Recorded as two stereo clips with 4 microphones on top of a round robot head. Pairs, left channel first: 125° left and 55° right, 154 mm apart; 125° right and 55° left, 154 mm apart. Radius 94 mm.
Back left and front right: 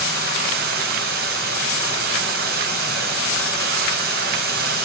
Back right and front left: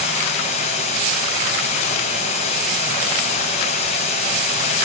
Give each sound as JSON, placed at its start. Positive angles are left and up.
{"t": 0.0, "sound": "running water", "azimuth_deg": -75, "distance_m": 4.0}